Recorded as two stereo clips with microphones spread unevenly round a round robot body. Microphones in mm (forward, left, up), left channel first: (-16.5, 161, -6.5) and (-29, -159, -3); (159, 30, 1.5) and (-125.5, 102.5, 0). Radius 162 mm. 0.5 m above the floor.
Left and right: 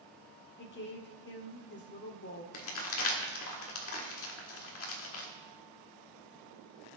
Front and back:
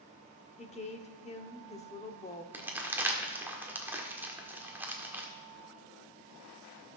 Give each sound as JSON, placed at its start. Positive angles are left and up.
{"t": 0.6, "sound": "a woman speaking", "azimuth_deg": 45, "distance_m": 1.0}
{"t": 2.5, "sound": "crumpling", "azimuth_deg": 85, "distance_m": 1.5}